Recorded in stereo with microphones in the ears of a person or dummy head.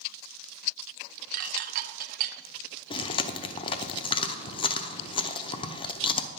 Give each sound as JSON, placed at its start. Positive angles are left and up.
{"t": 1.3, "sound": "dishes clattering", "side_deg": -50, "distance_m": 0.8}
{"t": 2.9, "sound": "chewing", "side_deg": 25, "distance_m": 0.6}